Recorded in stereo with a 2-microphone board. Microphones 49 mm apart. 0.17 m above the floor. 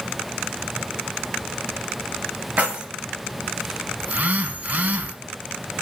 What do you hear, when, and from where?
2.6 s keys jangling: 25° right (ahead or behind), 1.1 m
4.0 s a phone buzzing: 35° right (ahead or behind), 0.5 m